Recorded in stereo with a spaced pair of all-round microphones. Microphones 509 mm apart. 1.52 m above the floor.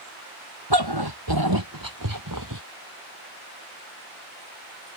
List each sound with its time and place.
0.7 s a dog barking: 50° right (ahead or behind); by 2.6 s 35° right (ahead or behind)